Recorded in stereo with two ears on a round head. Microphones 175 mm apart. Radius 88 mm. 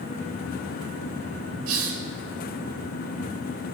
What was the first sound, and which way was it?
A hiss, 85° right.